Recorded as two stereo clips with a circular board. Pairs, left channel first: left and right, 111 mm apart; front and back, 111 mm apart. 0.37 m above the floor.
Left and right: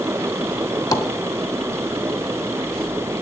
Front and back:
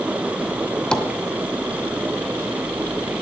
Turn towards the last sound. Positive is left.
turn(degrees=75)